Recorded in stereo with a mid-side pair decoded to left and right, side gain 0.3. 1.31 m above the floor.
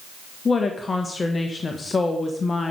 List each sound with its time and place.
0.5 s a woman speaking: 45° left, 1.3 m